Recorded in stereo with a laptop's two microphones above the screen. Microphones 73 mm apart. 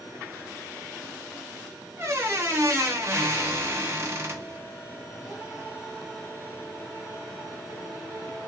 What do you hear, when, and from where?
2.0 s a squeak: 40° right (ahead or behind), 1.2 m